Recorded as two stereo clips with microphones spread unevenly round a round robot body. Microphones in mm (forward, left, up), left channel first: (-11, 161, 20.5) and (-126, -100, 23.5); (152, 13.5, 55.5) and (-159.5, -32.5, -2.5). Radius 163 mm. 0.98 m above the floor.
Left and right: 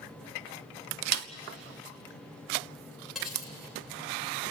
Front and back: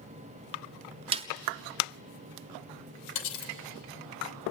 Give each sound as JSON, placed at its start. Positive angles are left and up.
{"t": 1.1, "sound": "a snare drum", "azimuth_deg": -95, "distance_m": 0.6}
{"t": 3.1, "sound": "cutlery clinking", "azimuth_deg": -25, "distance_m": 3.0}